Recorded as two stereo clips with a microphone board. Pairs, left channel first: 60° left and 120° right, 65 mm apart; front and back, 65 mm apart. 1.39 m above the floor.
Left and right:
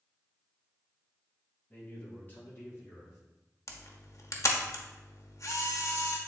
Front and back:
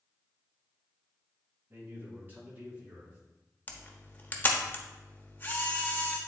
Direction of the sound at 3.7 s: 55° left.